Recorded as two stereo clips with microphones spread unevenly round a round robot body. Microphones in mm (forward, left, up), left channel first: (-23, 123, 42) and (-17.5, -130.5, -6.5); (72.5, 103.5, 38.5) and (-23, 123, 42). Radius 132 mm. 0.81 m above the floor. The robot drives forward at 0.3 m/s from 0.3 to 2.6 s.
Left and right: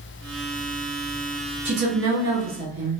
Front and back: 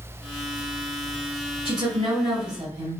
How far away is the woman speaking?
About 1.5 m.